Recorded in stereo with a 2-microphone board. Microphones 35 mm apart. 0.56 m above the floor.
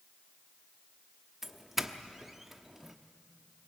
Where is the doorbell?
10° right (ahead or behind), 1.1 m.